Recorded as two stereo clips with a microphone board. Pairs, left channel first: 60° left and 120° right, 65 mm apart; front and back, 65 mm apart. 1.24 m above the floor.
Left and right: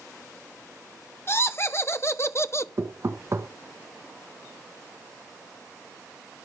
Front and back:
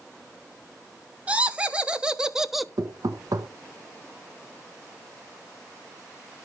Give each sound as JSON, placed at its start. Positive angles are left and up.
{"t": 1.3, "sound": "laughter", "azimuth_deg": 110, "distance_m": 1.7}
{"t": 2.8, "sound": "knocking", "azimuth_deg": -170, "distance_m": 1.4}